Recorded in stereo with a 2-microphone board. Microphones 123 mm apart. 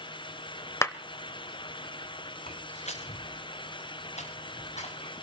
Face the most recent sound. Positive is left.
turn(degrees=70)  # may be behind; listen again after turning